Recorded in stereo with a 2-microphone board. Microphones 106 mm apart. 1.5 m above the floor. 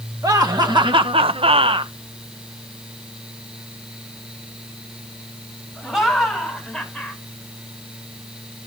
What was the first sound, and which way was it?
Laughter, 35° right (ahead or behind).